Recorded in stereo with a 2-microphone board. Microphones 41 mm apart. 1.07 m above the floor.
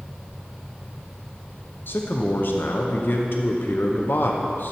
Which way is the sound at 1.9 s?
60° left (ahead or behind).